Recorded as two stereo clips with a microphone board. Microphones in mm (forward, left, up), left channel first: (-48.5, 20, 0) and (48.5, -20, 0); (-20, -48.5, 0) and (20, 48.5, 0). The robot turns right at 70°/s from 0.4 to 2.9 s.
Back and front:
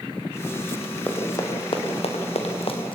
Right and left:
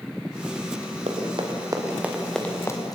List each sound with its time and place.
1.1 s running footsteps: 85° left, 4.5 m; by 3.0 s 165° right, 3.5 m